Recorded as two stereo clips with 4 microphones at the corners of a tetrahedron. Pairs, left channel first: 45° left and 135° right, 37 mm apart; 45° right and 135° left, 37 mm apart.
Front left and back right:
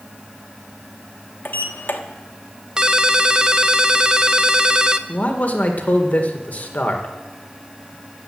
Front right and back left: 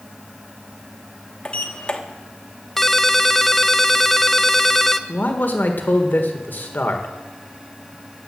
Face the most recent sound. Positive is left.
turn(degrees=-5)